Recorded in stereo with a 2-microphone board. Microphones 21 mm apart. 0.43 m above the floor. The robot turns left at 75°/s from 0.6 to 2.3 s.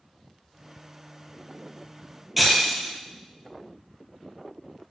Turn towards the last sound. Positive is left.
turn(degrees=0)  # may be behind; listen again after turning